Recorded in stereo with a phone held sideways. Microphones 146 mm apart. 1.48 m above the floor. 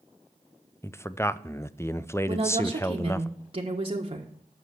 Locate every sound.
0.8 s a man speaking: 15° left (ahead or behind), 0.5 m
2.3 s a woman speaking: 40° right (ahead or behind), 1.5 m